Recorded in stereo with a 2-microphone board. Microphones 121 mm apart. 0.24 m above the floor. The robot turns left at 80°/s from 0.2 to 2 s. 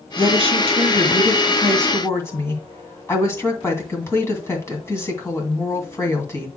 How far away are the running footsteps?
No running footsteps in this recording.